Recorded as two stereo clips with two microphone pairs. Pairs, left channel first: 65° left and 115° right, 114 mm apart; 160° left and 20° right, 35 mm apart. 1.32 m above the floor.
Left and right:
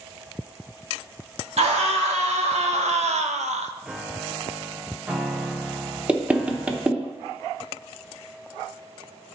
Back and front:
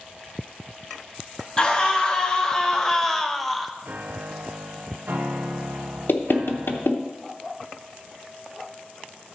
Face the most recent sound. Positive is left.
turn(degrees=170)